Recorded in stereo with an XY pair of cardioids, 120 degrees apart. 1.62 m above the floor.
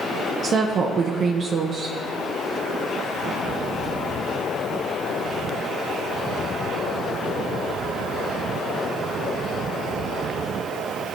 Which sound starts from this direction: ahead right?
A woman speaking, at 0.4 s.